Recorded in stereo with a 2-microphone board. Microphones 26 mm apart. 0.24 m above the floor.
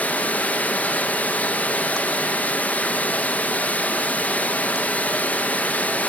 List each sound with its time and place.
0.0 s running water: 65° left (ahead or behind), 1.9 m